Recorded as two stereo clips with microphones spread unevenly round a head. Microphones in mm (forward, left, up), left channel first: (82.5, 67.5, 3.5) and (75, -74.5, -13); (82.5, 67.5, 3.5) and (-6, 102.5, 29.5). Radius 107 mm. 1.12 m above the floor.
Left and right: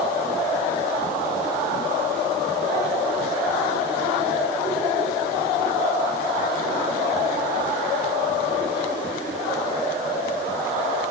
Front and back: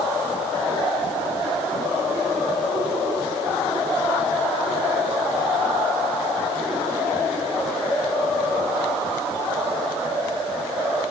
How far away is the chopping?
No chopping in this recording.